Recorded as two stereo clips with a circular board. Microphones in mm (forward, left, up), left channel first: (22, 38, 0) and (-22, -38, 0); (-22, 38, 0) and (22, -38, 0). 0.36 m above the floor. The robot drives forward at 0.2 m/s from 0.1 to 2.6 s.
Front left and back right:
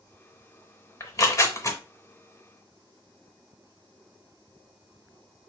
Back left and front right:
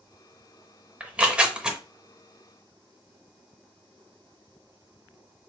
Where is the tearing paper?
15° left, 0.7 m; by 1.8 s 20° left, 0.6 m.